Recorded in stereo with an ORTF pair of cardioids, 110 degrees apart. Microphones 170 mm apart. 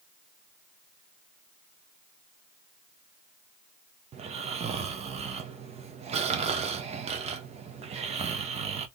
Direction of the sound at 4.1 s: 40° right.